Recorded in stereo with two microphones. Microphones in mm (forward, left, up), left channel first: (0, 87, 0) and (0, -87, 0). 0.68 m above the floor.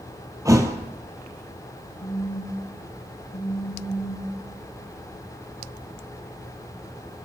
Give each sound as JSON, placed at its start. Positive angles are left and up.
{"t": 0.5, "sound": "a thud", "side_deg": -20, "distance_m": 1.6}
{"t": 2.0, "sound": "a phone buzzing", "side_deg": 50, "distance_m": 2.5}